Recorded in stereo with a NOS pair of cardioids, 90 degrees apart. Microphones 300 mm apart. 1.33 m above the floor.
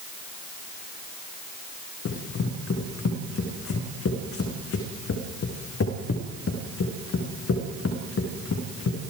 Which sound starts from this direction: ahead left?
Running footsteps, at 2.0 s.